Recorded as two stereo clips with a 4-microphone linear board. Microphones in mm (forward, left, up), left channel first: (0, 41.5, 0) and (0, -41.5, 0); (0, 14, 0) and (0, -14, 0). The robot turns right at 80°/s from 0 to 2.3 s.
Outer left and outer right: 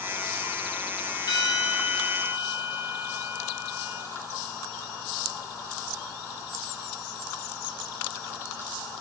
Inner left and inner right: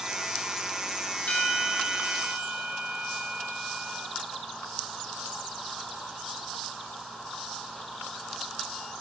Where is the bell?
120° left, 3 m; by 4.1 s 160° right, 3 m.